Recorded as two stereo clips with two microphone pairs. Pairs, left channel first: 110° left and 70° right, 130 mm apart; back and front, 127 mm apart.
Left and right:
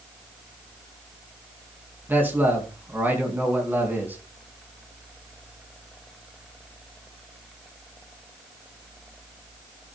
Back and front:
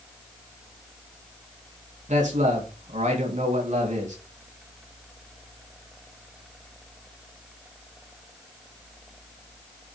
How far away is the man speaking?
About 3.5 m.